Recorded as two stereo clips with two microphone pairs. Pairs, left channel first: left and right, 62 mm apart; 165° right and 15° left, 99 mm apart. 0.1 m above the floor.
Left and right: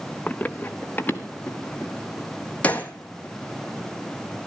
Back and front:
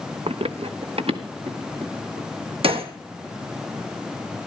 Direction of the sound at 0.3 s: 15° left.